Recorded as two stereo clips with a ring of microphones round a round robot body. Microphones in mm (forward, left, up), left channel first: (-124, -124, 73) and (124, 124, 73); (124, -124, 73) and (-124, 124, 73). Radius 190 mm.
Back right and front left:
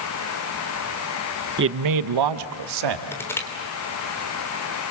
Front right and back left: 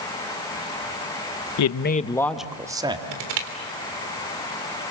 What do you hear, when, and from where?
1.6 s a man speaking: 15° right, 0.9 m; by 3.0 s 60° left, 2.5 m
3.1 s crushing: 140° left, 3.5 m